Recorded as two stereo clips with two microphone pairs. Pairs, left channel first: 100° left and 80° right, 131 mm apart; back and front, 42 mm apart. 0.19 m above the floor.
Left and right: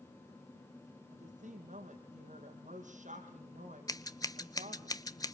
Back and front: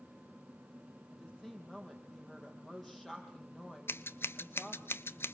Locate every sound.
1.1 s a woman speaking: 95° right, 6 m
3.9 s scissors: 165° left, 0.6 m